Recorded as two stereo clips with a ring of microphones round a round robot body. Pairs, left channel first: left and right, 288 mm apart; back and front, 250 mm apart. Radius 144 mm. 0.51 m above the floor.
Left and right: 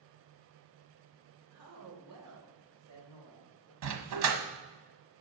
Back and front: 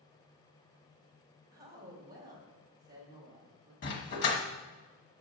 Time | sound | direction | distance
1.5 | a woman speaking | 55° right | 2.5 m
3.8 | a dog barking | 125° right | 1.3 m